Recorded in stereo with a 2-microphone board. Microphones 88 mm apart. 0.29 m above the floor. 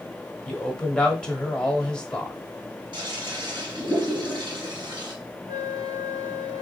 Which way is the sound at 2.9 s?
65° right (ahead or behind).